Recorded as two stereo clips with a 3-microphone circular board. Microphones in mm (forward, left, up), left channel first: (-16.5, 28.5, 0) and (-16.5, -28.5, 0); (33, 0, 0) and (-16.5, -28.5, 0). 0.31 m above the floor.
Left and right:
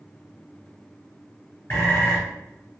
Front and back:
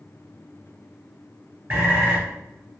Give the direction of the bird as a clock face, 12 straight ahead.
7 o'clock.